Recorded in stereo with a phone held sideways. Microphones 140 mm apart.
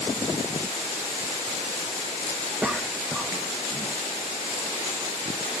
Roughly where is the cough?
Centre.